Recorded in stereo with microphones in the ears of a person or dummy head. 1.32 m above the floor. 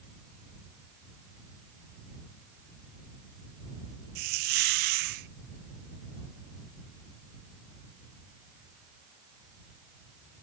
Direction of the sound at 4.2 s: 50° right (ahead or behind).